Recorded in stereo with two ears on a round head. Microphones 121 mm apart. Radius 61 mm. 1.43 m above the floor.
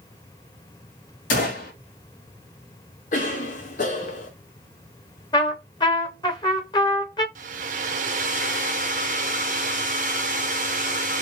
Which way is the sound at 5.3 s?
30° left (ahead or behind).